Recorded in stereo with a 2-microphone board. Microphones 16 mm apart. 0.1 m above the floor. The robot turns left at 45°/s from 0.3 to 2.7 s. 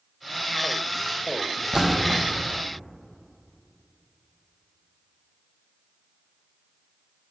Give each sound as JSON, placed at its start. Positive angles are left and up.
{"t": 1.7, "sound": "a splash", "side_deg": -40, "distance_m": 1.2}